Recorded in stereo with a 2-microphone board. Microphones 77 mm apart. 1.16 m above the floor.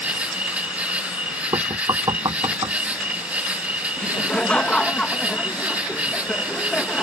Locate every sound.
0.0 s an insect: 20° right (ahead or behind)
1.5 s knocking: 65° right (ahead or behind)
4.0 s laughter: 15° left (ahead or behind)